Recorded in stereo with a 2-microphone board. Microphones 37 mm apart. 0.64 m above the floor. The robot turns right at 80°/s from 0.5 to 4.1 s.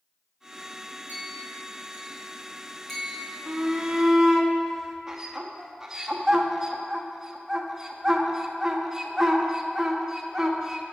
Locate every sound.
1.1 s a clink: 45° right (ahead or behind), 3 m; by 3.3 s 45° left (ahead or behind), 3 m
3.5 s a shout: 25° right (ahead or behind), 0.7 m; by 10.8 s 15° right (ahead or behind), 0.7 m